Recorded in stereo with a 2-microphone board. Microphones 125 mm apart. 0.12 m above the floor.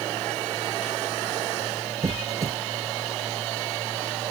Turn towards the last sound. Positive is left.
turn(degrees=-25)  # may be behind; listen again after turning